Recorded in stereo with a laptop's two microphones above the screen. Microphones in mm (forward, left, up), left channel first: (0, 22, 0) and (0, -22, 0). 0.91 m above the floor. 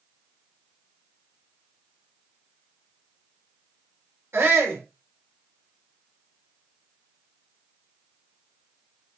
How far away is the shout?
About 3 m.